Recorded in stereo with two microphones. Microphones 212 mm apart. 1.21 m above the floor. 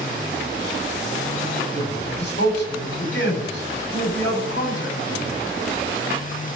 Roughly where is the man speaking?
Left.